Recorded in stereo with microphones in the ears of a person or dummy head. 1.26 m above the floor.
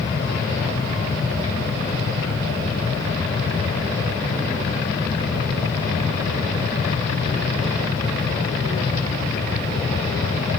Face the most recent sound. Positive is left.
No sound to turn to.